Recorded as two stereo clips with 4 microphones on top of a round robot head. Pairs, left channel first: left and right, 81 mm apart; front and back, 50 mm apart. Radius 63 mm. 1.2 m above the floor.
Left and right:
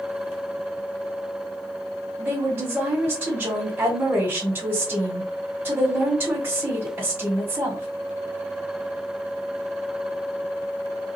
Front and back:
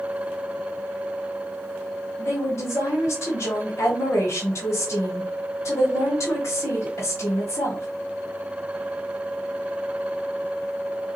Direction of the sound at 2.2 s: 25° right.